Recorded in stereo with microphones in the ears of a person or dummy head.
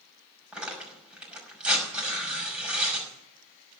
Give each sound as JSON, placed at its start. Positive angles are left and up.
{"t": 0.5, "sound": "tearing paper", "side_deg": -5, "distance_m": 5.5}